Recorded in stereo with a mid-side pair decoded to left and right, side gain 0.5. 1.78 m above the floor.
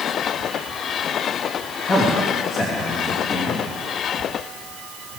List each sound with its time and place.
1.9 s a man speaking: 40° left, 3.5 m